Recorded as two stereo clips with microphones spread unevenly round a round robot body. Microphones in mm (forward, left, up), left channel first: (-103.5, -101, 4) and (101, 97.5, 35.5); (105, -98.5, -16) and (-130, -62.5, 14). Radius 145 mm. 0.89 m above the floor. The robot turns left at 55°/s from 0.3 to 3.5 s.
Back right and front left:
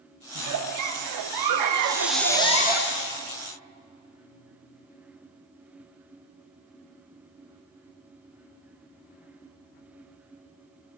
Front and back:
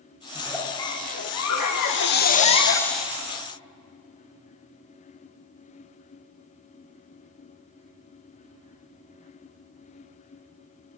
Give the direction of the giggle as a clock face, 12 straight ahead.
9 o'clock.